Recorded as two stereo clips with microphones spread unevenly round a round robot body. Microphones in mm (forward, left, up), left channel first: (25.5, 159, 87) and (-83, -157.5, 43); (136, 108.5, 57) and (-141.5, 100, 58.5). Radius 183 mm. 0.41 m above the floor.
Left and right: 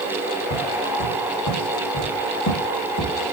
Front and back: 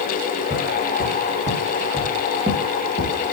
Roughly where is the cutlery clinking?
No cutlery clinking in this recording.